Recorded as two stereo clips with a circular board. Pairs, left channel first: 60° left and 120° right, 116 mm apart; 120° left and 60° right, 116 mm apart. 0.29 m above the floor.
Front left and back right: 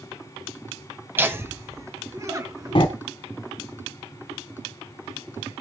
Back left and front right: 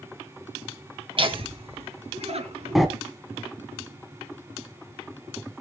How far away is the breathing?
About 1.5 m.